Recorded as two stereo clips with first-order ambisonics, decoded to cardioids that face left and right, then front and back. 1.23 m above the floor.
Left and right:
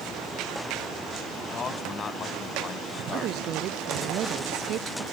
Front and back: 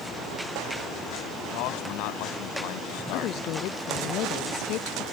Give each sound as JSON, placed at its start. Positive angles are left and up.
{"t": 1.5, "sound": "a man speaking", "azimuth_deg": 20}
{"t": 3.1, "sound": "a woman speaking", "azimuth_deg": -40}